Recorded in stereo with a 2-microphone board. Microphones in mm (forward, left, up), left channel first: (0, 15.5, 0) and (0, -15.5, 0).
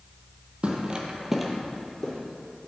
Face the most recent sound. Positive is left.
turn(degrees=20)  # may be behind; listen again after turning